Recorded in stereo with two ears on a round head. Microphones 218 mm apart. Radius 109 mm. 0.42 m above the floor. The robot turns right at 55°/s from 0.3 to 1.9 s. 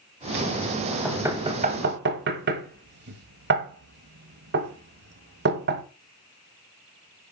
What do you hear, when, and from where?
1.1 s knocking: centre (ahead or behind), 1.3 m; by 5.8 s 45° right (ahead or behind), 1.3 m